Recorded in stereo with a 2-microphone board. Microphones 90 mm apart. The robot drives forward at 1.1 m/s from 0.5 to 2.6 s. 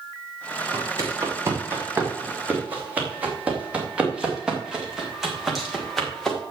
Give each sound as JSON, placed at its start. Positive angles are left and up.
{"t": 0.7, "sound": "footsteps", "side_deg": -40, "distance_m": 5.0}